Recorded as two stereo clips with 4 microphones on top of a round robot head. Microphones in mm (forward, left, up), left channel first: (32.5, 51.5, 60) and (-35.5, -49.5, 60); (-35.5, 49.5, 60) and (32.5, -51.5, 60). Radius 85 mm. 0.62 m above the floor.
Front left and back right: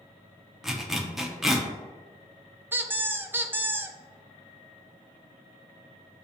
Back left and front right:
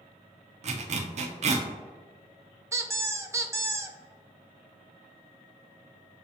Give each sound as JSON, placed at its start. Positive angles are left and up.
{"t": 0.6, "sound": "a zipper", "azimuth_deg": -35, "distance_m": 0.6}
{"t": 2.7, "sound": "a squeak", "azimuth_deg": -75, "distance_m": 0.6}